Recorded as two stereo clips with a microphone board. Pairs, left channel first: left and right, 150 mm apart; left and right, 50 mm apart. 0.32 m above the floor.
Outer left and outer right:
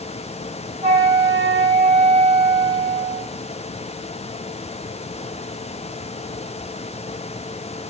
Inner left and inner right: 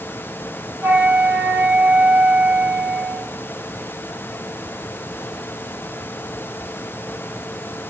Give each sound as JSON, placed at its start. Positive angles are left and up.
{"t": 0.8, "sound": "a flute", "side_deg": -45, "distance_m": 1.5}